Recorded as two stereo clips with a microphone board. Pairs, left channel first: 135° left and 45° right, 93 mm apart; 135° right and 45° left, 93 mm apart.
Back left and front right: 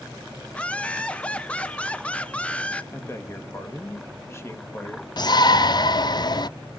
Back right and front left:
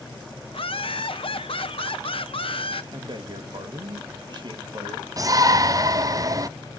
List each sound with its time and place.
0.5 s laughter: 150° right, 1.0 m
2.9 s a man speaking: 75° left, 1.8 m
5.2 s a shout: 95° left, 0.6 m